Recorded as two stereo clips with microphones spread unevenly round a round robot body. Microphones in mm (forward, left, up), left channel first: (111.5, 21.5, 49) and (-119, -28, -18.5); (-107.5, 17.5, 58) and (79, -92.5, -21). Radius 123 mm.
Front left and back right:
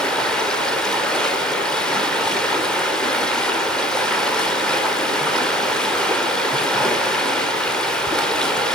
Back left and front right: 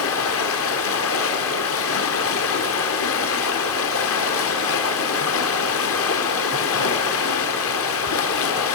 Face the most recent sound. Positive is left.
turn(degrees=105)